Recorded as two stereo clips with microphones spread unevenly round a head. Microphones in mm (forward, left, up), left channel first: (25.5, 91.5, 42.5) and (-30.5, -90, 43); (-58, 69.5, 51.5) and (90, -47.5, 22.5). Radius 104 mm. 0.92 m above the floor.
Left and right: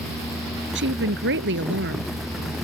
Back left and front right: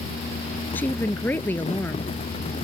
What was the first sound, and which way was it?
A woman speaking, 140° right.